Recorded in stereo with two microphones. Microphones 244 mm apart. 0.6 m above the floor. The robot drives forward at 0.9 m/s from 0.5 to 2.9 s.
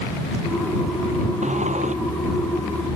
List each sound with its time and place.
1.4 s a sliding door: 30° right (ahead or behind)